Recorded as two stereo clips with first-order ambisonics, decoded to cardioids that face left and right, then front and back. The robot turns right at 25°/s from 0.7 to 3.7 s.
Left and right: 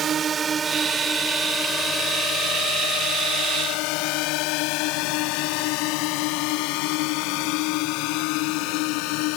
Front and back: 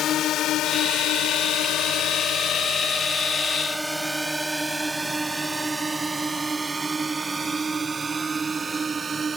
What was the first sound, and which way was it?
A drone, 40° right.